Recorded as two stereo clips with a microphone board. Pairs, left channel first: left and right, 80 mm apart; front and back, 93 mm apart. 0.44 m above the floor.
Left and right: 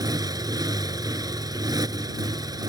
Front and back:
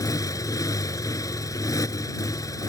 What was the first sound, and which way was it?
A motorcycle, 50° right.